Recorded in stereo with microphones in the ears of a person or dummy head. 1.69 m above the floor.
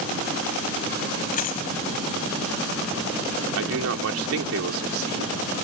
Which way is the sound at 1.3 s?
45° left (ahead or behind).